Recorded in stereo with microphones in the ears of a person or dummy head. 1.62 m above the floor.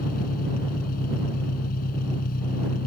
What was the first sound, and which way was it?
An engine running, 50° left (ahead or behind).